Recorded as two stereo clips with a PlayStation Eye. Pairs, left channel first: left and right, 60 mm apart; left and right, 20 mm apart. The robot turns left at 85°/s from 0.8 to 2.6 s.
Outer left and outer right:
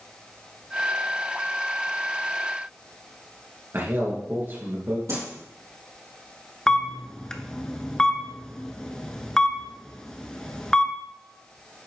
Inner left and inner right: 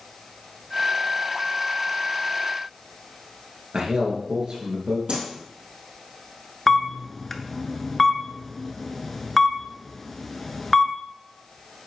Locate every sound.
3.7 s a man speaking: 45° right (ahead or behind), 2.0 m
5.1 s a whoosh: 70° right (ahead or behind), 3.5 m
6.7 s a camera shutter: 10° left (ahead or behind), 0.6 m